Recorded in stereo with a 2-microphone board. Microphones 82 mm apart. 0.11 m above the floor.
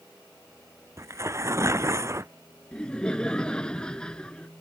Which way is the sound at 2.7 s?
10° left (ahead or behind).